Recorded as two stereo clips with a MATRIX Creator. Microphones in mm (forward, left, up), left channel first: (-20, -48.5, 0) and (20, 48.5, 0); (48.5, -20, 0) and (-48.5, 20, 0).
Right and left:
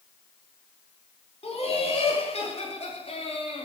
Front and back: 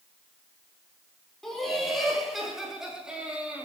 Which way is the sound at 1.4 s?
110° right.